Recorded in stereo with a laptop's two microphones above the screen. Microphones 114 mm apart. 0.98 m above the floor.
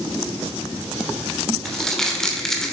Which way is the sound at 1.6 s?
5° left (ahead or behind).